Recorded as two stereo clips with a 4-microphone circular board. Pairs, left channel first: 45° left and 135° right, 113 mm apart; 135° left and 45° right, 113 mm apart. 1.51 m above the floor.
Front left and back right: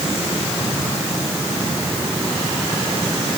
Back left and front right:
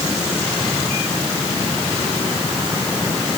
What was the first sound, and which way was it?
Only background noise.